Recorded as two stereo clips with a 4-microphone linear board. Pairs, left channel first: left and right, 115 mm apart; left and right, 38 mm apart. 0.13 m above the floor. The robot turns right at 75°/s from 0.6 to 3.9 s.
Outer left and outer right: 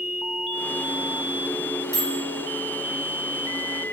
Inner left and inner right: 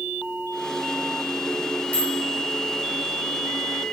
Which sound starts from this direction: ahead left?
A microwave, at 1.9 s.